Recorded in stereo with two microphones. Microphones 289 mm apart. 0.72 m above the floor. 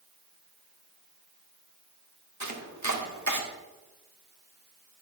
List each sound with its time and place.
2.4 s chopping: 70° right (ahead or behind), 1.4 m